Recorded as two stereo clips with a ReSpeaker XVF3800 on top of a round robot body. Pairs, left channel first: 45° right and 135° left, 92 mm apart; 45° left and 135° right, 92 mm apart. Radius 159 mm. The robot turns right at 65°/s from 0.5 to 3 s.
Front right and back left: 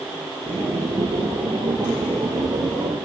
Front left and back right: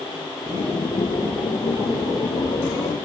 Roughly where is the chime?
No chime in this recording.